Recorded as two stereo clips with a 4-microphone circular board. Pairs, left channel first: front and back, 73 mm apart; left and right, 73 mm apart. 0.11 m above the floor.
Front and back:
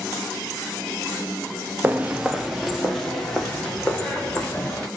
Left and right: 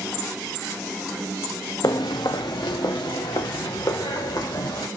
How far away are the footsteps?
About 0.7 m.